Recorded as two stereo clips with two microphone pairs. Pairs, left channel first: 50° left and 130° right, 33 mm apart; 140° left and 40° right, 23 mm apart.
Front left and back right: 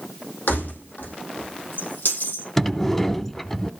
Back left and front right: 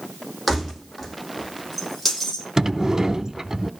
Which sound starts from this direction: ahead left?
Keys jangling, at 0.5 s.